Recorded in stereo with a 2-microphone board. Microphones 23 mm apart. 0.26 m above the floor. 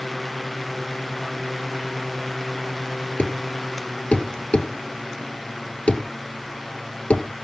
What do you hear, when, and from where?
3.2 s a thud: 60° left (ahead or behind), 1.6 m